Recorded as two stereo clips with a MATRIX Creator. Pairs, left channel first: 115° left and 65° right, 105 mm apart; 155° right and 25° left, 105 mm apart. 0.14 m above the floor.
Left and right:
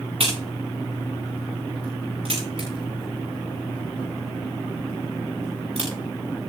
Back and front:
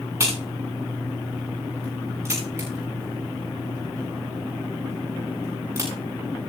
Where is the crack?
40° right, 9.5 m.